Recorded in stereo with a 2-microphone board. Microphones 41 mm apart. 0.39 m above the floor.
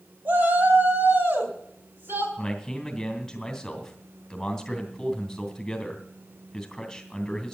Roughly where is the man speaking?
Centre.